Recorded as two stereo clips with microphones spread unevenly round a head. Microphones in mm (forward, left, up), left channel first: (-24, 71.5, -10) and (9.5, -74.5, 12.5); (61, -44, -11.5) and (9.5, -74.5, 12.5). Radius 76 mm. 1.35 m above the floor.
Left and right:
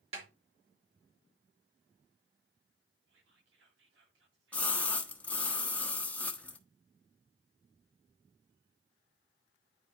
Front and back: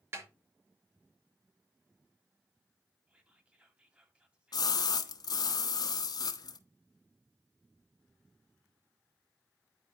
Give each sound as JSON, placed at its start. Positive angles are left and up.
{"t": 0.1, "sound": "a snare drum", "azimuth_deg": -125, "distance_m": 3.5}
{"t": 3.1, "sound": "whispering", "azimuth_deg": -85, "distance_m": 2.5}
{"t": 4.5, "sound": "a splash", "azimuth_deg": 15, "distance_m": 1.0}